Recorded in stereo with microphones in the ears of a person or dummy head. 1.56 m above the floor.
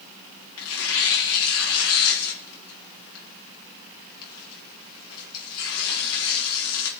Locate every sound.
0.6 s tearing paper: 80° left, 1.8 m